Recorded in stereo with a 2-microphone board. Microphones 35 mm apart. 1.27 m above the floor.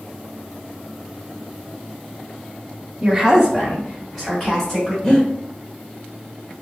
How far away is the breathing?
About 1.0 m.